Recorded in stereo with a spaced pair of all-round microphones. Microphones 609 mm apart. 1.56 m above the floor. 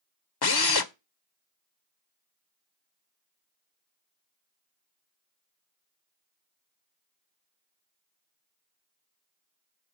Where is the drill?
45° left (ahead or behind), 0.6 m.